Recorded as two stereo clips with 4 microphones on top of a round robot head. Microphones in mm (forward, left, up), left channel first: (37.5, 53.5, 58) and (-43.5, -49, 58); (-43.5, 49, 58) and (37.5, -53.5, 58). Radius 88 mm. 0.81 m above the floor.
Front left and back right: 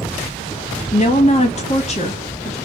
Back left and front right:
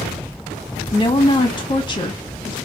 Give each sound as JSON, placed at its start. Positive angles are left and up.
{"t": 0.9, "sound": "a woman speaking", "azimuth_deg": 75, "distance_m": 1.3}